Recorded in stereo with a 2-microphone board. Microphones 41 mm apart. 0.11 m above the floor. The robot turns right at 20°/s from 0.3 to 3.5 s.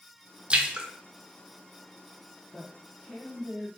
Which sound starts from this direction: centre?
A woman speaking, at 2.5 s.